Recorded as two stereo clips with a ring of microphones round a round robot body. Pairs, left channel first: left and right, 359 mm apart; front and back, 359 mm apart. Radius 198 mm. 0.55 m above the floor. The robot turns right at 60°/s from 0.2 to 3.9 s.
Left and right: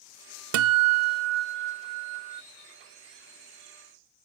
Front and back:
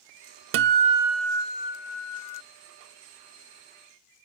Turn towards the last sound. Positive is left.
turn(degrees=75)